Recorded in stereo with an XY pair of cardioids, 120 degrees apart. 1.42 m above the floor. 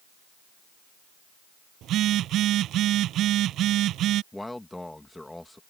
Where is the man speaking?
10° left.